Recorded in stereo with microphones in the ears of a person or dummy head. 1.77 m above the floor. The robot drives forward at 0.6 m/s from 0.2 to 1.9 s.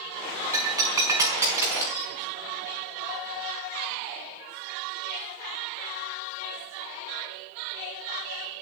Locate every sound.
0.5 s breaking glass: 15° right (ahead or behind), 5 m